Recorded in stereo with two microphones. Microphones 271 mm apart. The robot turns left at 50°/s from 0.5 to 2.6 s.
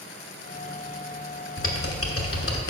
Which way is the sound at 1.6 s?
50° left (ahead or behind).